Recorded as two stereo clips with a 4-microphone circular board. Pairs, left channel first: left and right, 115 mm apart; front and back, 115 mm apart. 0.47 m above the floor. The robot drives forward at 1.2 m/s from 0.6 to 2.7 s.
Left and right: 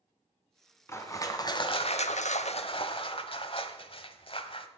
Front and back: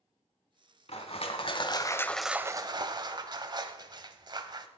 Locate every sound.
0.9 s crushing: 25° left, 1.8 m; by 4.7 s 130° left, 0.9 m